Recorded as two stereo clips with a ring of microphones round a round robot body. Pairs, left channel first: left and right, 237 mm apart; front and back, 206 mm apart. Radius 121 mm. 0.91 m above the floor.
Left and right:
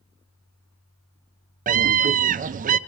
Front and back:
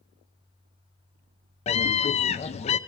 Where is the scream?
50° right, 0.6 m.